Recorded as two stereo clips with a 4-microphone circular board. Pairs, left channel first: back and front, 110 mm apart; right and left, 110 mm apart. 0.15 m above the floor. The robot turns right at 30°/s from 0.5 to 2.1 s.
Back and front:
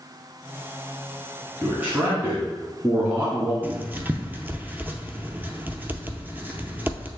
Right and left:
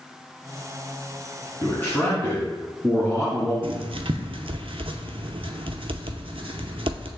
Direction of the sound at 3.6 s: 70° left.